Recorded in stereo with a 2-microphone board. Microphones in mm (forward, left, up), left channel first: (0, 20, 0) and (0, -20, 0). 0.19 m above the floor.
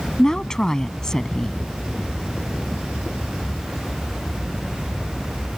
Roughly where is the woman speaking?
Centre.